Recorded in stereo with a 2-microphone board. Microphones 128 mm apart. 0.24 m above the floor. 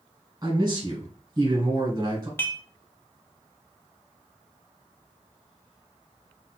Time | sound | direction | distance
0.4 | a man speaking | 25° right (ahead or behind) | 1.2 m
2.4 | dishes clattering | 20° left (ahead or behind) | 0.6 m